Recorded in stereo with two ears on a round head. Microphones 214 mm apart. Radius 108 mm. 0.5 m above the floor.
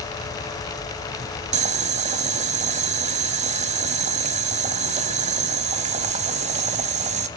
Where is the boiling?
30° right (ahead or behind), 0.9 m.